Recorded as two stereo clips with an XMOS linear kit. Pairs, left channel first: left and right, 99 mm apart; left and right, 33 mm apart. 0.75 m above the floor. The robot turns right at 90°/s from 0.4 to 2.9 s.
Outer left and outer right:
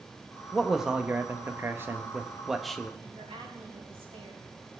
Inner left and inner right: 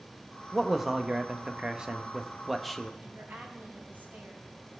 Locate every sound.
0.5 s a man speaking: 5° left (ahead or behind), 0.8 m; by 2.9 s 10° left (ahead or behind), 0.8 m
3.0 s a woman speaking: 80° right, 4 m